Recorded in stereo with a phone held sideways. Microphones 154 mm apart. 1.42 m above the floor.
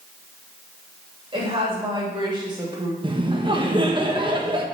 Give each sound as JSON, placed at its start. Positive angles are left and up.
{"t": 1.3, "sound": "a woman speaking", "side_deg": -35, "distance_m": 3.0}
{"t": 3.0, "sound": "laughter", "side_deg": -30, "distance_m": 1.2}